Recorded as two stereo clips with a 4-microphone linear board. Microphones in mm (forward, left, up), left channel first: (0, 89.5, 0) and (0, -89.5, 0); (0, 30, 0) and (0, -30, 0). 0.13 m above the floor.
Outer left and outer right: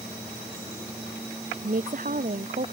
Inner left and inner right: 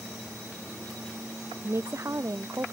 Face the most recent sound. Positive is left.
turn(degrees=-50)  # may be behind; listen again after turning